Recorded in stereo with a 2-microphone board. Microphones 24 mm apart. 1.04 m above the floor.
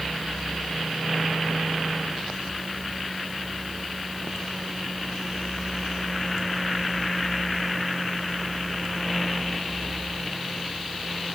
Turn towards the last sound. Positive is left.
No sound to turn to.